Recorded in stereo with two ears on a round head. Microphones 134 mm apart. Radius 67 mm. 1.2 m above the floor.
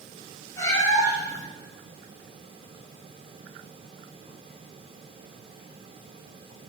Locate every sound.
0.6 s a cat meowing: 25° left (ahead or behind), 2 m